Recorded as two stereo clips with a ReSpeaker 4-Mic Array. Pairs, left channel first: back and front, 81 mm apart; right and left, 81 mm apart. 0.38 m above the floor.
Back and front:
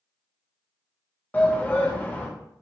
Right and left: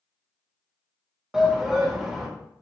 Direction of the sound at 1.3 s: 160° left.